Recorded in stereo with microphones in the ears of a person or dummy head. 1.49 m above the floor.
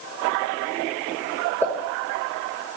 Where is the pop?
10° left (ahead or behind), 4.5 m.